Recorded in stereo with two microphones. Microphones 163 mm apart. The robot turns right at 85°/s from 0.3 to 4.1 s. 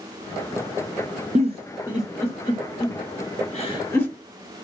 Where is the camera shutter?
I don't hear a camera shutter.